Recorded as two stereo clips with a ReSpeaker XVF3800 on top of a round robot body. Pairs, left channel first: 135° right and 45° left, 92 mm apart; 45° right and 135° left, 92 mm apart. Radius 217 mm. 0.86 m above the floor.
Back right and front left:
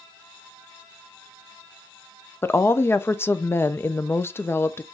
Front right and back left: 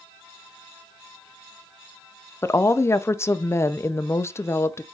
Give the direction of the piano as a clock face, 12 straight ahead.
No piano in this recording.